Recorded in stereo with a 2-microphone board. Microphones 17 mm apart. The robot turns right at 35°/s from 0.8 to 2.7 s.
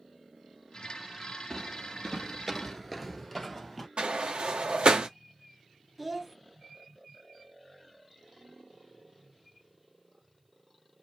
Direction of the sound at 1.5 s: 25° left (ahead or behind).